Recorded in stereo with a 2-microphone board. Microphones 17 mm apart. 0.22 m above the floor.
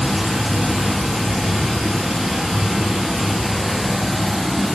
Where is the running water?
45° right (ahead or behind), 1.7 m.